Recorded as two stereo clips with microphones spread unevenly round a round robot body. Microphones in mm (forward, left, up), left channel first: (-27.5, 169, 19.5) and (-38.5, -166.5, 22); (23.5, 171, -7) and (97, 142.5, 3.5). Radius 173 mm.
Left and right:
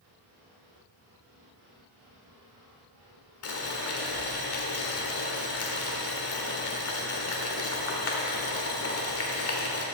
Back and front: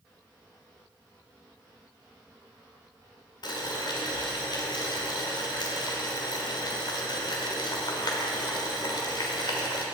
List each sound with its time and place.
3.4 s boiling: 135° left, 1.5 m